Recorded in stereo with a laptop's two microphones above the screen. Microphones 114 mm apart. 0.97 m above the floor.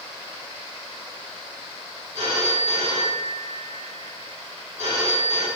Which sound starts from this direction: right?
A phone ringing, at 2.1 s.